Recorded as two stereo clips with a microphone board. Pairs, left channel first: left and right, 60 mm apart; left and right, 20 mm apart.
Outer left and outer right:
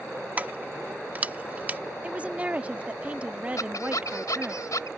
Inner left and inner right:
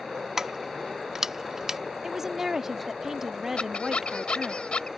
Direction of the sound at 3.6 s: 75° left (ahead or behind).